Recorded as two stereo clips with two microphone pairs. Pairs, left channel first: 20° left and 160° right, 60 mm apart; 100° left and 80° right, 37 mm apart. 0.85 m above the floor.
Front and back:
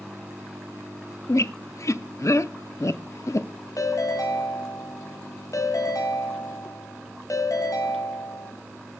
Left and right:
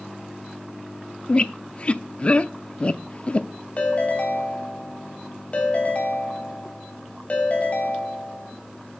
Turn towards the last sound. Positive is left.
turn(degrees=40)